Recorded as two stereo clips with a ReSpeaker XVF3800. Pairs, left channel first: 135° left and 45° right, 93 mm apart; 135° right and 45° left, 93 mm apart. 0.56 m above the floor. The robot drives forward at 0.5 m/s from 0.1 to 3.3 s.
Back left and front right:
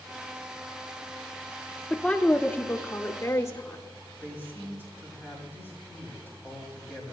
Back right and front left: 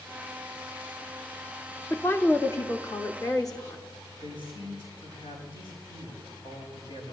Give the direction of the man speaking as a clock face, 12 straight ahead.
4 o'clock.